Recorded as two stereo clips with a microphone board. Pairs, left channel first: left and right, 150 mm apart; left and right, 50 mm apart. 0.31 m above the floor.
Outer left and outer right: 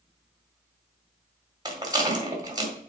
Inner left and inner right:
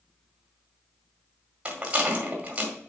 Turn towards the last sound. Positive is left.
turn(degrees=-25)  # may be behind; listen again after turning